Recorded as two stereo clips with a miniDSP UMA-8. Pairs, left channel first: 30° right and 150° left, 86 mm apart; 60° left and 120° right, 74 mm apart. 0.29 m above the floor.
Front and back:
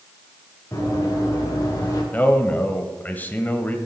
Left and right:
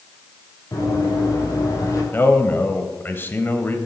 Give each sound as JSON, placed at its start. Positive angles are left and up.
{"t": 0.7, "sound": "running footsteps", "azimuth_deg": 25, "distance_m": 6.5}
{"t": 2.1, "sound": "a man speaking", "azimuth_deg": 25, "distance_m": 1.2}